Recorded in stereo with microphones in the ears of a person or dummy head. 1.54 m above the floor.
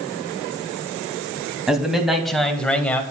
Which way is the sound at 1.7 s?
5° right (ahead or behind).